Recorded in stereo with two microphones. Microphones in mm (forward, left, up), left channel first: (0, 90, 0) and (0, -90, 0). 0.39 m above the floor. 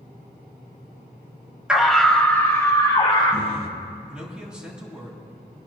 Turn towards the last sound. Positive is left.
turn(degrees=-5)  # may be behind; listen again after turning